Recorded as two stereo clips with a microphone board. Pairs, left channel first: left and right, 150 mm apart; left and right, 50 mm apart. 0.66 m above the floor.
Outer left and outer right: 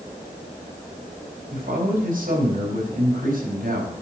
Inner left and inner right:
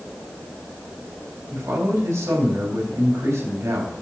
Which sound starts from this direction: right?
A man speaking, at 1.5 s.